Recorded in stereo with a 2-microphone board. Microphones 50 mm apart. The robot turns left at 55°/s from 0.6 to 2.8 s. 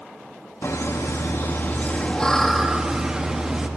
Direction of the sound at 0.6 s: 105° left.